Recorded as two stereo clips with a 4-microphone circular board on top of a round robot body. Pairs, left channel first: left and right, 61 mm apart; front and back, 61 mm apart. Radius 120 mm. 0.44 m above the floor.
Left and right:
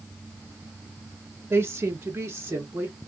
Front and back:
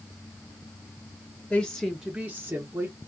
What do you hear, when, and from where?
1.5 s a woman speaking: 60° right, 0.9 m; by 3.0 s 145° right, 1.4 m